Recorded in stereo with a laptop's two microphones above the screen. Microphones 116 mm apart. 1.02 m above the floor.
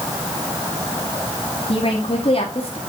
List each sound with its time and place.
1.7 s a woman speaking: 55° left (ahead or behind), 2 m